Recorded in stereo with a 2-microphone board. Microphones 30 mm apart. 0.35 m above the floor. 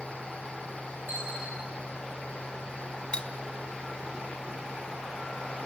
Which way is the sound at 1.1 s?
80° right.